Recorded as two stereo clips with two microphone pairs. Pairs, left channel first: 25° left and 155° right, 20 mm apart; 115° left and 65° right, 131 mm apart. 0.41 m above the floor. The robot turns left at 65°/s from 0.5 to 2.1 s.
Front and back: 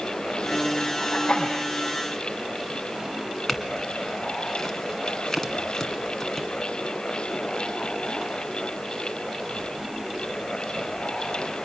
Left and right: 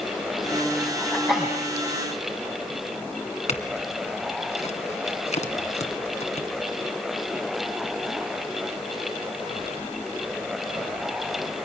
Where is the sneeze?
35° left, 3 m; by 1.6 s straight ahead, 3 m.